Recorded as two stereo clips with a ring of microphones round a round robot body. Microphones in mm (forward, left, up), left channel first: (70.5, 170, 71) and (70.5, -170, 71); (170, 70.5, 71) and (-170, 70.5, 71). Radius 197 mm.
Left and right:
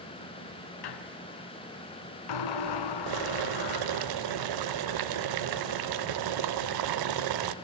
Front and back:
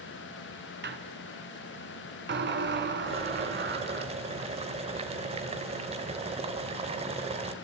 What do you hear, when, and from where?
0.8 s a squeak: 120° left, 1.4 m
3.1 s boiling: 105° right, 0.7 m